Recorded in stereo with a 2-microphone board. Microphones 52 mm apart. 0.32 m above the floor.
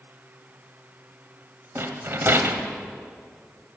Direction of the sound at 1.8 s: 50° right (ahead or behind).